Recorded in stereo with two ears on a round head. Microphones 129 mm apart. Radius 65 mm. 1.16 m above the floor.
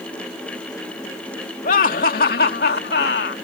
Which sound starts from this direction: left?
Laughter, at 1.6 s.